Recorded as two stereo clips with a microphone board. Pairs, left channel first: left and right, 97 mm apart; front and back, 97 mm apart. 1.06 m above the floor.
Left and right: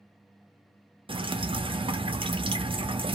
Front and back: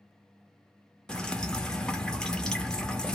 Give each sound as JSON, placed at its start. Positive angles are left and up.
{"t": 1.1, "sound": "dripping", "azimuth_deg": -80, "distance_m": 0.5}